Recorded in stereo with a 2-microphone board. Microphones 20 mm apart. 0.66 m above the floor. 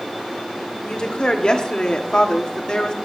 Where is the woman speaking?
40° left (ahead or behind), 1.9 m.